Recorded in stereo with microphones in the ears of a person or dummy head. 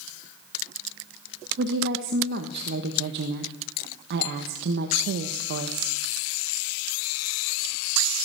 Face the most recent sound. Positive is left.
turn(degrees=-65)  # may be behind; listen again after turning